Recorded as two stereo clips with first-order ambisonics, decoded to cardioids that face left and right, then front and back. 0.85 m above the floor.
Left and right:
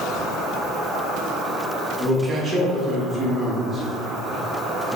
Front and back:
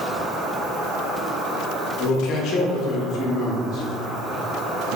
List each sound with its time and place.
0.0 s an insect: 145° right, 1.1 m
2.0 s a man speaking: 25° right, 0.9 m